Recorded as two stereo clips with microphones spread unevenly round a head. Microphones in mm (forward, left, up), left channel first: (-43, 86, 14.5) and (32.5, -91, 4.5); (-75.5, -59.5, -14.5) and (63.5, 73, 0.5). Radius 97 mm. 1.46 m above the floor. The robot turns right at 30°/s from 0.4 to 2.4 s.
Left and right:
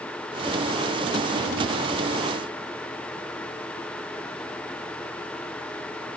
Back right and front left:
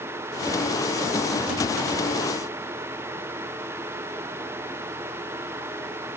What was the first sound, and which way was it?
Only background noise.